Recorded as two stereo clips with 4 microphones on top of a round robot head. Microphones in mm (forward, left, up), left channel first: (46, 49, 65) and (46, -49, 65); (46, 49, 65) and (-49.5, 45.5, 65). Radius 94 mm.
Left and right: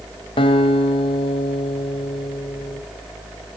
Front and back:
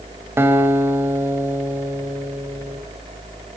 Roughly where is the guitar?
Behind left.